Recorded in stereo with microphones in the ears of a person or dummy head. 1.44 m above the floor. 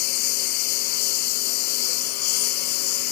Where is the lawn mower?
55° left (ahead or behind).